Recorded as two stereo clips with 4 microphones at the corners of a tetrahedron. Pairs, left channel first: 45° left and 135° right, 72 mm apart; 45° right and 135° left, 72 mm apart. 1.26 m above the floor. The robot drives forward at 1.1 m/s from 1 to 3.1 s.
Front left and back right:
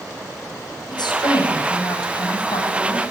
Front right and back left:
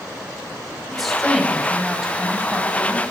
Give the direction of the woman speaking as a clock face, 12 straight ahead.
10 o'clock.